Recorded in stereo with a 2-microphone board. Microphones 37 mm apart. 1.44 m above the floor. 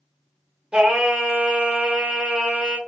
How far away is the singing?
About 0.8 m.